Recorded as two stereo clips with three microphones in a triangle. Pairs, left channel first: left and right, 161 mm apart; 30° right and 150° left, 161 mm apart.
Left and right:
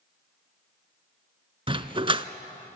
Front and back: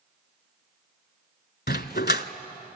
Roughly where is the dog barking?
Ahead right.